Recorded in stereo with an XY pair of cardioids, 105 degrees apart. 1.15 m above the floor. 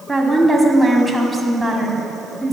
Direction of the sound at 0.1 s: 5° right.